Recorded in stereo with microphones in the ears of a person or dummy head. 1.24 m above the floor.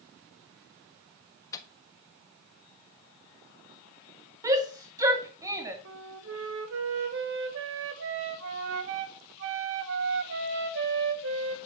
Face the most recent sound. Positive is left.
turn(degrees=-70)  # may be behind; listen again after turning